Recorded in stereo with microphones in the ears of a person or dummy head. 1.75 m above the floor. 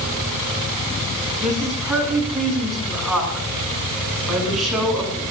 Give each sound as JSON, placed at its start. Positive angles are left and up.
{"t": 1.4, "sound": "a woman speaking", "side_deg": 0, "distance_m": 7.0}